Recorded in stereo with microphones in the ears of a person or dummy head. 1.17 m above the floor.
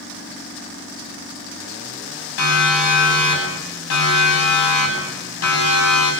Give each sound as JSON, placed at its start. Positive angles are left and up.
{"t": 2.4, "sound": "a siren", "side_deg": 75, "distance_m": 9.5}